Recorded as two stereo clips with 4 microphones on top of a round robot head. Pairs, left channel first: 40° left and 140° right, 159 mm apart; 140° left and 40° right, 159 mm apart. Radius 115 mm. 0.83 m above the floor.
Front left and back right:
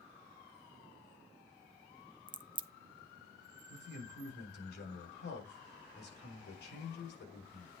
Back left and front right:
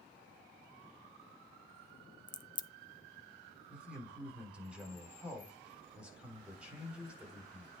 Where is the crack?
Straight behind, 0.7 m.